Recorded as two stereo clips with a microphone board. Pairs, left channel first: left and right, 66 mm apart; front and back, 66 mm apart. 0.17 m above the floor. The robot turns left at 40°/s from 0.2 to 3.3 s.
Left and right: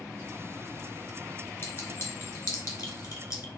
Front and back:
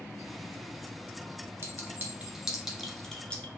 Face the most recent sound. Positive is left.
turn(degrees=70)